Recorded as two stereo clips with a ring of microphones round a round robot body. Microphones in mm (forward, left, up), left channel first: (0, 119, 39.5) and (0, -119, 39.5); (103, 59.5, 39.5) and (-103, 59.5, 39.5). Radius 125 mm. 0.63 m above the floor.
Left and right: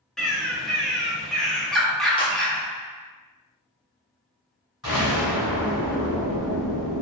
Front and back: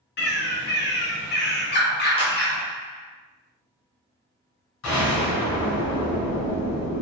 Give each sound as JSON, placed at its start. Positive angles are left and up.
{"t": 0.2, "sound": "a bird", "azimuth_deg": 0, "distance_m": 0.6}
{"t": 2.2, "sound": "a clap", "azimuth_deg": 35, "distance_m": 0.8}
{"t": 4.8, "sound": "an explosion", "azimuth_deg": -5, "distance_m": 1.2}